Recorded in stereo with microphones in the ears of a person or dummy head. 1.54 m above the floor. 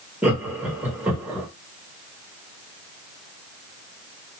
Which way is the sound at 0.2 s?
5° right (ahead or behind).